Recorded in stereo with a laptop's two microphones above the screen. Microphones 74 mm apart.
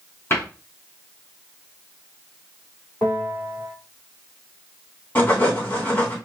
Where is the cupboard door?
30° left (ahead or behind), 2.5 m.